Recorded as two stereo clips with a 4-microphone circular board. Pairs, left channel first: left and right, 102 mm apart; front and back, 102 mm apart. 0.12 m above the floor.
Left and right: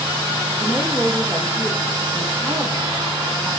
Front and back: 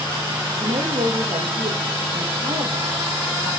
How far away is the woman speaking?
About 5 m.